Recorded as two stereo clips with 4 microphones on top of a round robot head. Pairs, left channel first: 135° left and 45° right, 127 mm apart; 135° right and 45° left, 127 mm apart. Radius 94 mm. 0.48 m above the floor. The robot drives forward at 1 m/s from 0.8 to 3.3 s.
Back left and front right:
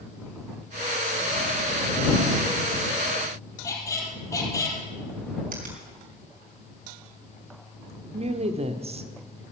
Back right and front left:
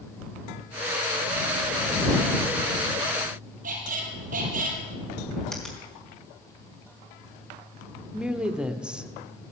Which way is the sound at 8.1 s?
35° right.